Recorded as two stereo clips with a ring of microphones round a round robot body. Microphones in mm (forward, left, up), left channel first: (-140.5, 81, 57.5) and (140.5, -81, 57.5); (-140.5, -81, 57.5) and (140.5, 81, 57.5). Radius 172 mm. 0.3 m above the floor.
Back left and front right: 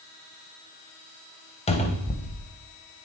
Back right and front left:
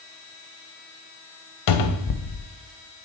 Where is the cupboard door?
140° right, 0.8 m.